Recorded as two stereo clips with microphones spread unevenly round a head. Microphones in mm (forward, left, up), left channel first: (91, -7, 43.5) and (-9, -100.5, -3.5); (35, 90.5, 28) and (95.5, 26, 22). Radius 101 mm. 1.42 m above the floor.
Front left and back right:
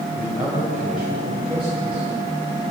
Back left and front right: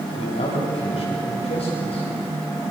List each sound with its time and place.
0.1 s a man speaking: 135° left, 7 m